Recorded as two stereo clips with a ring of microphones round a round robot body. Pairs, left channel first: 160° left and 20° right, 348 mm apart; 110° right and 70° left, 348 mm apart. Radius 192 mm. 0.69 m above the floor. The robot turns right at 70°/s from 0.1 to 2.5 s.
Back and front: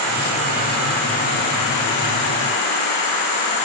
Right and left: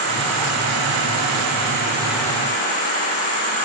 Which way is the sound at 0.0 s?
10° left.